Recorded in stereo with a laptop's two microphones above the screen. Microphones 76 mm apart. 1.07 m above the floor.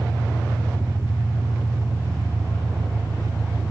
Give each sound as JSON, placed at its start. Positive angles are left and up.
{"t": 0.0, "sound": "an engine running", "side_deg": -35, "distance_m": 7.0}